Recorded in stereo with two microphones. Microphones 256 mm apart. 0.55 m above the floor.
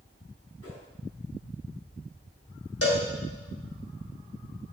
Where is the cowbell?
60° left (ahead or behind), 1.9 m.